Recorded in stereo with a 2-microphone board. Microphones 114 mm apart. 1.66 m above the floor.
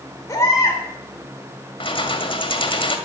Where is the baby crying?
30° left (ahead or behind), 3.5 m.